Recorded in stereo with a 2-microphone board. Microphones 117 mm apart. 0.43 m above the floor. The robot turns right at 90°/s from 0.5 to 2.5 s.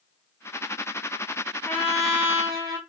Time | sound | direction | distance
1.6 | a trumpet | 150° left | 0.8 m